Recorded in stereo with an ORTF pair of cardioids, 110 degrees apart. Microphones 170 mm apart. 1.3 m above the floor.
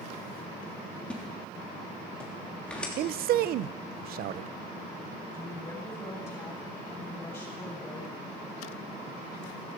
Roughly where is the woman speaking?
Ahead.